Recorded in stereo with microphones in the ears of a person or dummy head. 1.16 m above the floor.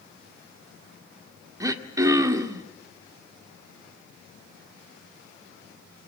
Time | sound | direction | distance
1.6 | throat clearing | 20° right (ahead or behind) | 1.8 m